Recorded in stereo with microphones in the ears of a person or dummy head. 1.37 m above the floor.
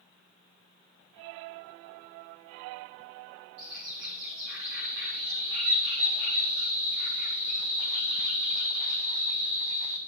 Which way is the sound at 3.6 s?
70° right (ahead or behind).